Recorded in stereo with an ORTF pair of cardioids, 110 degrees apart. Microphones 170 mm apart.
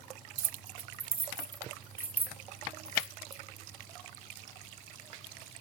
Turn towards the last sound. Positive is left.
turn(degrees=0)